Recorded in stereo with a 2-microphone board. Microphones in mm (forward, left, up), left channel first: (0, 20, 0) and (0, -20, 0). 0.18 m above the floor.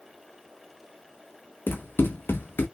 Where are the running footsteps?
70° left (ahead or behind), 0.9 m.